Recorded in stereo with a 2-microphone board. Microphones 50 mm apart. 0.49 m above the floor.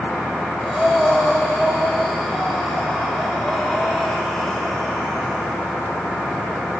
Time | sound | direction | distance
0.6 | breathing | 5° left (ahead or behind) | 4.5 m